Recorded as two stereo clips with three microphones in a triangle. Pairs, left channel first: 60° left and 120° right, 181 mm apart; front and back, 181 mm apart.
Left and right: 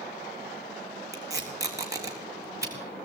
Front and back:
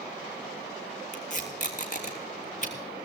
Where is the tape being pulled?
45° right, 3 m.